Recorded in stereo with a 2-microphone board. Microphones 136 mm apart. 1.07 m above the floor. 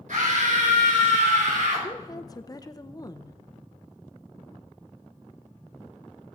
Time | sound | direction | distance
0.1 | a scream | 70° right (ahead or behind) | 5 m
1.8 | a woman speaking | 30° left (ahead or behind) | 0.6 m